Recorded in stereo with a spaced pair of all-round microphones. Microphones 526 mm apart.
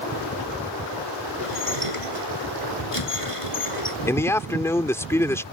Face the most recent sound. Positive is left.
turn(degrees=5)  # may be behind; listen again after turning